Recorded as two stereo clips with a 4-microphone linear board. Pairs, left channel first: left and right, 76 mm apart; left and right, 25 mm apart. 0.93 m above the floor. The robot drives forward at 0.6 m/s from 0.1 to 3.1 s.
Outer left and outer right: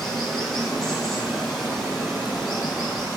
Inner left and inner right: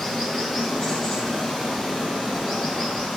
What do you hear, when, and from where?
0.0 s running water: 5° left (ahead or behind), 2 m; by 3.2 s centre (ahead or behind), 4 m